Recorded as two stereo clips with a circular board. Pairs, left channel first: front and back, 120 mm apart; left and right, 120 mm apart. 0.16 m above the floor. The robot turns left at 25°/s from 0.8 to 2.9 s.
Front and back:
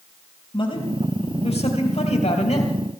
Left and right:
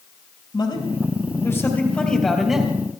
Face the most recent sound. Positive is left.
turn(degrees=-15)